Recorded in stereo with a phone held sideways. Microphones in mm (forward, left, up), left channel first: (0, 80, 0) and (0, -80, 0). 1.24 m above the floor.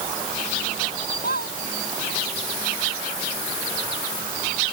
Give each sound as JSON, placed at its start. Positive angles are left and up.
{"t": 1.2, "sound": "a squeak", "side_deg": 85}